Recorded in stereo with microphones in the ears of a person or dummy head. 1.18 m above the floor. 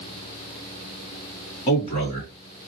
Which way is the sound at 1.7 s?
35° left (ahead or behind).